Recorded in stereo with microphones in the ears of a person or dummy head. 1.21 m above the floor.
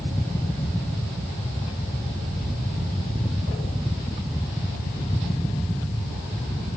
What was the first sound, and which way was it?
Only background noise.